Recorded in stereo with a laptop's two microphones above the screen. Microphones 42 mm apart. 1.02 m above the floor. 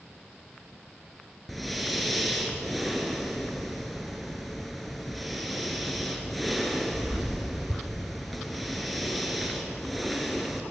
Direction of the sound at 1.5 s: Centre (ahead or behind).